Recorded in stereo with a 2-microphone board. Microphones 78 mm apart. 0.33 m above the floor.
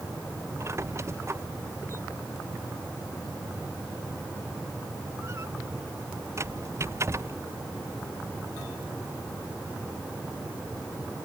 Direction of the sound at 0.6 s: 40° right (ahead or behind).